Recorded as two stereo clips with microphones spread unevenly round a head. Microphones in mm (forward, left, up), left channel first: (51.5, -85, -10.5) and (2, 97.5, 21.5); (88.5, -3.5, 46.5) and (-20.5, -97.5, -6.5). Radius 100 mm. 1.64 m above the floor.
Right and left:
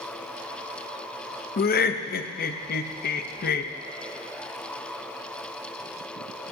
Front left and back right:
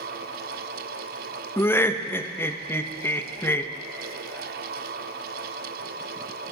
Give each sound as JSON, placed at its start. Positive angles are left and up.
{"t": 1.6, "sound": "laughter", "azimuth_deg": -35, "distance_m": 0.6}